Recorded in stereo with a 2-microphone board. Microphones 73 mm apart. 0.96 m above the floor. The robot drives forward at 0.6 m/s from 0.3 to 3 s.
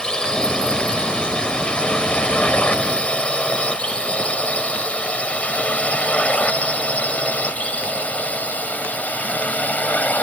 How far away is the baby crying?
No baby crying in this recording.